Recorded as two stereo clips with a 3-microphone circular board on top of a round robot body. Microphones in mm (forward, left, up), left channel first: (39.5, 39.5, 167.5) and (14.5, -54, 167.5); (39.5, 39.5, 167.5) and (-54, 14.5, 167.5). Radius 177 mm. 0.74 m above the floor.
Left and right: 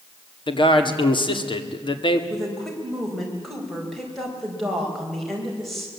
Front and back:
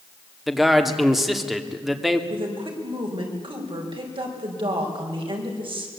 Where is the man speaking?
105° left, 2 m.